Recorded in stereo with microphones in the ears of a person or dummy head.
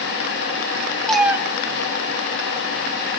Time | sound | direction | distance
1.1 | a cat meowing | 5° left (ahead or behind) | 0.8 m